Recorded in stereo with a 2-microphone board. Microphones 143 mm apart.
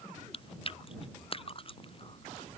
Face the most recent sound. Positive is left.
turn(degrees=40)  # may be behind; listen again after turning